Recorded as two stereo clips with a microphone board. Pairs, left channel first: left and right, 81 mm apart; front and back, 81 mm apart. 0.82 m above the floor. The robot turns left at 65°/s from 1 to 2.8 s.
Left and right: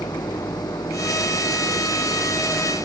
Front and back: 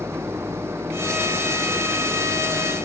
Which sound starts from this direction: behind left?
An engine running, at 0.0 s.